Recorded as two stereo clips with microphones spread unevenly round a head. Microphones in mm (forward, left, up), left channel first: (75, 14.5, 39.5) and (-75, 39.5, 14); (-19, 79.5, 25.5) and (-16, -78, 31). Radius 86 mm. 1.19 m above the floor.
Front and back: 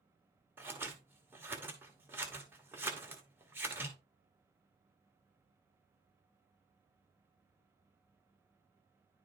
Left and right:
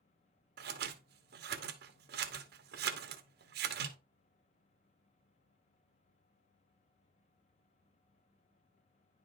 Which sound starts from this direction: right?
Scissors, at 0.6 s.